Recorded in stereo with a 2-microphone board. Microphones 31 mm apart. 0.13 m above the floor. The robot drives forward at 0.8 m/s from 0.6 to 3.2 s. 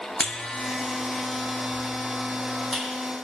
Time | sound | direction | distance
0.2 | a buzzer | 30° left (ahead or behind) | 1.0 m